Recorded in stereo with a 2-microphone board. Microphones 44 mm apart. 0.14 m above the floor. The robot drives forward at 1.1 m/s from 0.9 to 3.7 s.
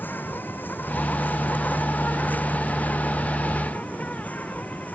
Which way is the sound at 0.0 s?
45° left (ahead or behind).